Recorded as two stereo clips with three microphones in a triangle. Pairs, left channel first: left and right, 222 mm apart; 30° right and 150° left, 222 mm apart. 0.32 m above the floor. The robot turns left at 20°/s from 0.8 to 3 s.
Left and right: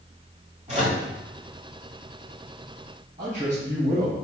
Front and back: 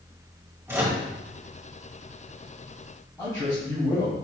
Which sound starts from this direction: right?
A man speaking, at 3.2 s.